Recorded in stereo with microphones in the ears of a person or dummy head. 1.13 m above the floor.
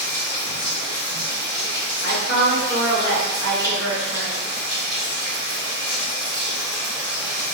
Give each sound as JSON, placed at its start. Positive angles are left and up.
{"t": 0.0, "sound": "running water", "side_deg": 25, "distance_m": 1.4}
{"t": 2.0, "sound": "a woman speaking", "side_deg": 40, "distance_m": 1.5}